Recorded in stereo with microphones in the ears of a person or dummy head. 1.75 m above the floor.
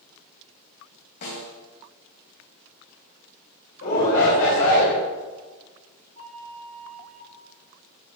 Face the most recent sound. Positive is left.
turn(degrees=-80)